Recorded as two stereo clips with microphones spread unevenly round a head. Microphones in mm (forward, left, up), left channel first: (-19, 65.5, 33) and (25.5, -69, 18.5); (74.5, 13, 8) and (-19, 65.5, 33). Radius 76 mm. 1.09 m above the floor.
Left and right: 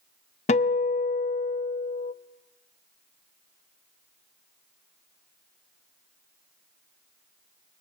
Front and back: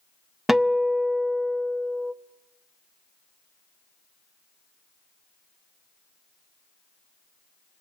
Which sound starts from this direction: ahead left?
A guitar, at 0.5 s.